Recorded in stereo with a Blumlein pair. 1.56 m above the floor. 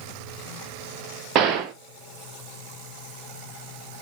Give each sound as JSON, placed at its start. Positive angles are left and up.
{"t": 1.4, "sound": "a gunshot", "azimuth_deg": -30, "distance_m": 1.2}